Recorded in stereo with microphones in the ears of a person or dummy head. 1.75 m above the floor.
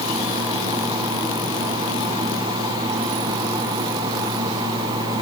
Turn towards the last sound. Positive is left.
No sound to turn to.